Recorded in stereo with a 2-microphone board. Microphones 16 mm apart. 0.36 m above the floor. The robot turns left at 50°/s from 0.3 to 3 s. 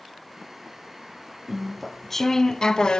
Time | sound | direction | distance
1.5 | chewing | 165° right | 0.7 m